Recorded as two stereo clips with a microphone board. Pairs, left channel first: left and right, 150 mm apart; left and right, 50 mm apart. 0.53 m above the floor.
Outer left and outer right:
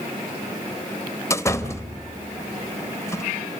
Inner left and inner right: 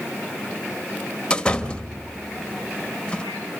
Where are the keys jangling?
No keys jangling in this recording.